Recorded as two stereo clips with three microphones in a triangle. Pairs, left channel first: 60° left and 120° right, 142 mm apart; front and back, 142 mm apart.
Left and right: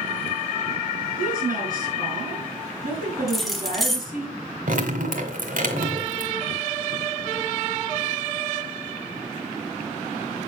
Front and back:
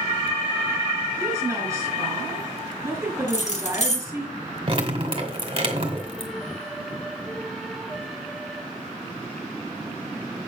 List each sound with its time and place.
1.2 s a woman speaking: 110° right, 5 m
3.3 s keys jangling: 30° right, 1.4 m
4.7 s dripping: 130° right, 1.9 m